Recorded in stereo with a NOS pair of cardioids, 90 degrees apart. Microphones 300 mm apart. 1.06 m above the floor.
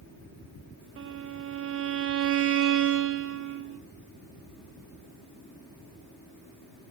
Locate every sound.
1.0 s a violin: 45° right, 0.9 m